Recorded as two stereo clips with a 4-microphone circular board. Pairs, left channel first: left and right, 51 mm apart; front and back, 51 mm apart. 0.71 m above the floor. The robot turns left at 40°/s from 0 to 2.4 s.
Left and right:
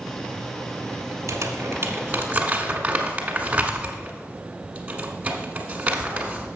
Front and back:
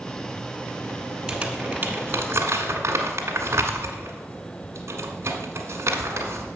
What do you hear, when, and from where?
1.3 s crumpling: 105° right, 1.4 m; by 6.5 s 150° right, 1.4 m